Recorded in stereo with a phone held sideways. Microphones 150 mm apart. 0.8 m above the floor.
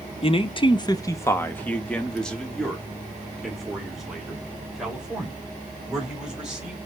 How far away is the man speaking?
About 0.5 m.